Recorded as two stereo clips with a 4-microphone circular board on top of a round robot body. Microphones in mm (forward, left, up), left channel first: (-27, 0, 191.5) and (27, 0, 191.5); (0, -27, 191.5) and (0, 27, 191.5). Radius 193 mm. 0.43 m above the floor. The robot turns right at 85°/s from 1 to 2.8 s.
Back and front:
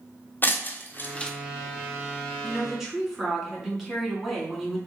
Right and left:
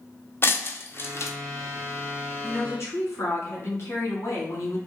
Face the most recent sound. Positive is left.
turn(degrees=-80)